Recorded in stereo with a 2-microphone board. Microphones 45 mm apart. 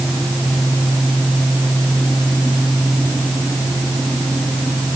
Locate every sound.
Only background noise.